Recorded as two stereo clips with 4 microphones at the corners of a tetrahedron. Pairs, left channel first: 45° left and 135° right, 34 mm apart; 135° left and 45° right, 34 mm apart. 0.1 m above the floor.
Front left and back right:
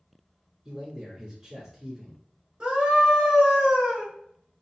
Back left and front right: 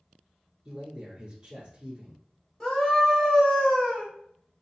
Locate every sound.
0.7 s a man speaking: 85° right, 1.4 m
2.6 s a scream: 160° right, 1.7 m